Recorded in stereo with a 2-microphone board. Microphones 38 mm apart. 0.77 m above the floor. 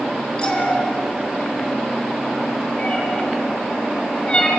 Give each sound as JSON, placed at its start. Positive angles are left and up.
{"t": 0.4, "sound": "a cat meowing", "side_deg": 25, "distance_m": 4.5}